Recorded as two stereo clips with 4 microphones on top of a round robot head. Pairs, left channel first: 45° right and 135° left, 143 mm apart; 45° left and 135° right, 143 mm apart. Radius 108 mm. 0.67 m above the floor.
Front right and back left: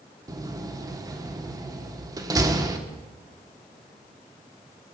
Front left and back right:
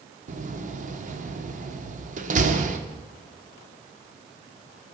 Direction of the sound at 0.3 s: 160° right.